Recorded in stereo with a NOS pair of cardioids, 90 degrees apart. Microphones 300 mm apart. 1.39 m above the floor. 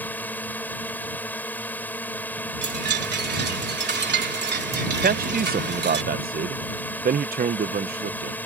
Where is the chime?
35° right.